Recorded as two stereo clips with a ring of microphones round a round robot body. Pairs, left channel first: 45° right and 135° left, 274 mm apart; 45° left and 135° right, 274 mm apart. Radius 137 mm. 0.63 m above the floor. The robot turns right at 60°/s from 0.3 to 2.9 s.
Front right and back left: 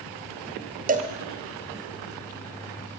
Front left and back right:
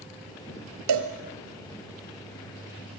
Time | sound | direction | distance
0.9 | a cowbell | 165° right | 2.0 m